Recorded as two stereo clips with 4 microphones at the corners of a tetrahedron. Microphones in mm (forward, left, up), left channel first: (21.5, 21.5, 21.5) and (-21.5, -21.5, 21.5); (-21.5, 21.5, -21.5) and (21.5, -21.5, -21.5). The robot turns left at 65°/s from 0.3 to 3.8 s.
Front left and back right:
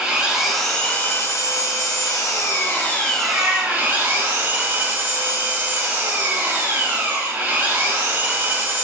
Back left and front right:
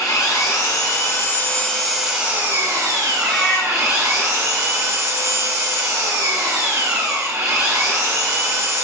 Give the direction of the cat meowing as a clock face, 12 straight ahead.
5 o'clock.